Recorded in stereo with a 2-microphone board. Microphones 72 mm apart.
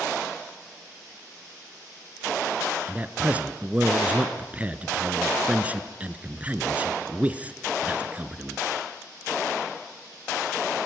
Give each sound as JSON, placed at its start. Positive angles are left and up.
{"t": 2.9, "sound": "a man speaking", "side_deg": -20, "distance_m": 1.1}